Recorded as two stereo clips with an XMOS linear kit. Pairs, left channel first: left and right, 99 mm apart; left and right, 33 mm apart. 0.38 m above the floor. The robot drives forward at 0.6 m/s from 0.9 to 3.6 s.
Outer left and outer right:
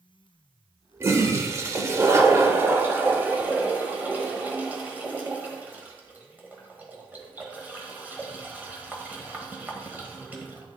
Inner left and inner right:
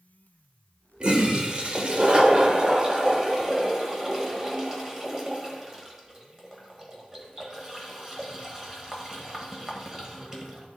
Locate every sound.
1.0 s a toilet flushing: 30° right (ahead or behind), 1.0 m; by 10.7 s 15° right (ahead or behind), 1.5 m